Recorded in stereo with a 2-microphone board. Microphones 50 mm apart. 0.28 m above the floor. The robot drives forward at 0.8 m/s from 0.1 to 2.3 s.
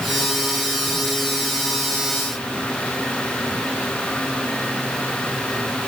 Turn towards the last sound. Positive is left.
No sound to turn to.